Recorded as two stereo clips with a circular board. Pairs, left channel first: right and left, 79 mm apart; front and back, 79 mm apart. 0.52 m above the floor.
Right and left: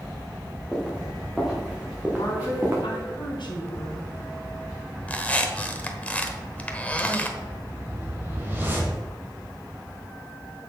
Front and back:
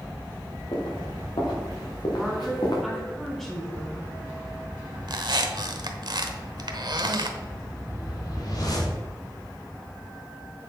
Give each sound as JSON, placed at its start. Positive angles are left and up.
{"t": 0.7, "sound": "footsteps", "azimuth_deg": -5, "distance_m": 4.5}
{"t": 2.1, "sound": "a woman speaking", "azimuth_deg": -85, "distance_m": 3.5}
{"t": 5.1, "sound": "a squeak", "azimuth_deg": -160, "distance_m": 1.1}
{"t": 7.4, "sound": "a whoosh", "azimuth_deg": 30, "distance_m": 3.0}